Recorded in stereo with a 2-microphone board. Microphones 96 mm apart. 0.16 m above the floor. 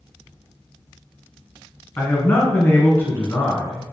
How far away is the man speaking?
About 1.4 m.